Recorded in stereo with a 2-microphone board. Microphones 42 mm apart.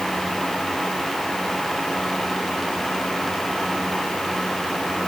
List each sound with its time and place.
Only background noise.